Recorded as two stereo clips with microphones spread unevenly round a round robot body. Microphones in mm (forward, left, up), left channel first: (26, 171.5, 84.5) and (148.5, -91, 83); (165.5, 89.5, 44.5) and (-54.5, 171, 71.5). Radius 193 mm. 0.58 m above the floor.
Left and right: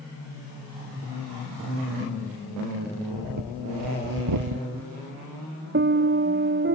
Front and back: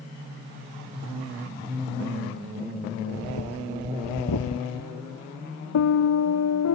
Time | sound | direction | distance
3.1 | breathing | 50° right | ?
5.7 | a piano | 15° right | ?